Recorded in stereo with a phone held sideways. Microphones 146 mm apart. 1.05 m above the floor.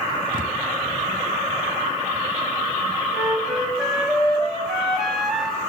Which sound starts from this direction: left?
A thud, at 0.3 s.